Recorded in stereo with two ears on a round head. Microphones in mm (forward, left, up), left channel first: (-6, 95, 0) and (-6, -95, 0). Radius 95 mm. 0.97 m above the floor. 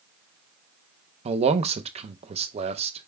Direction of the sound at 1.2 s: 30° right (ahead or behind).